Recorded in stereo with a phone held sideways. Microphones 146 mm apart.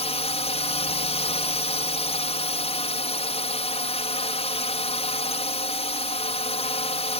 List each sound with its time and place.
0.0 s a drone: 45° left (ahead or behind)